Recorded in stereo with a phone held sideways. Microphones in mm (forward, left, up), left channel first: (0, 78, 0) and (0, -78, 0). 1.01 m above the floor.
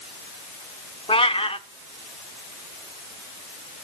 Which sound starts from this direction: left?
A cat meowing, at 1.1 s.